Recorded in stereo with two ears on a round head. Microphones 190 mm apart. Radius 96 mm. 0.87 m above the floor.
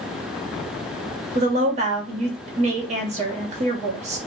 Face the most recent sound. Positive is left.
turn(degrees=-30)  # may be behind; listen again after turning